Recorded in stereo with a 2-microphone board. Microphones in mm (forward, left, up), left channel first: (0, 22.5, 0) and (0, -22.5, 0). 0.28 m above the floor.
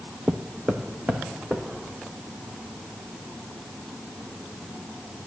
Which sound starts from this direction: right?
Footsteps, at 0.3 s.